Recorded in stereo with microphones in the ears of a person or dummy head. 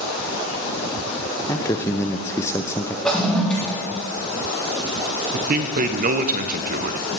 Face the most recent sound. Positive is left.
turn(degrees=-40)  # may be behind; listen again after turning